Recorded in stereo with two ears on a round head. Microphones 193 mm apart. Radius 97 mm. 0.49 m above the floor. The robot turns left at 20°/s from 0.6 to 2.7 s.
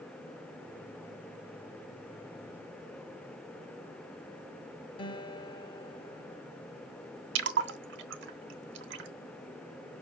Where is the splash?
55° right (ahead or behind), 0.9 m.